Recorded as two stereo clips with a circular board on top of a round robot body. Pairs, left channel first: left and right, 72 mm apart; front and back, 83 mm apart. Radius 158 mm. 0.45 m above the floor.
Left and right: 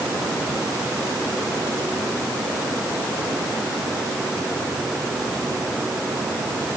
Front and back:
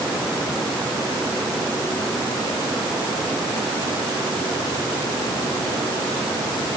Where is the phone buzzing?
No phone buzzing in this recording.